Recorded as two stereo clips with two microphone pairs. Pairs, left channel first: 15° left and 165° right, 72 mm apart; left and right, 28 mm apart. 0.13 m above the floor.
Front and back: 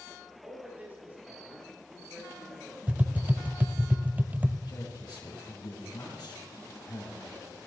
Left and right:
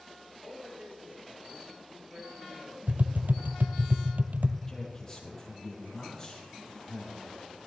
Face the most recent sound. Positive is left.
turn(degrees=20)